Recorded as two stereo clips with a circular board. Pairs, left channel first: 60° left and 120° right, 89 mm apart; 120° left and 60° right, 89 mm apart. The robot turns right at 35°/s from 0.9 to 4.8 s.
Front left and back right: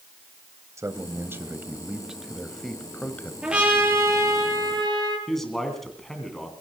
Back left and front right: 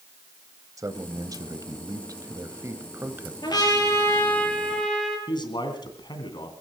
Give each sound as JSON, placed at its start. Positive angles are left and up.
{"t": 0.8, "sound": "a man speaking", "azimuth_deg": -85, "distance_m": 1.3}
{"t": 3.4, "sound": "a trumpet", "azimuth_deg": 160, "distance_m": 6.0}
{"t": 5.3, "sound": "a man speaking", "azimuth_deg": 145, "distance_m": 2.5}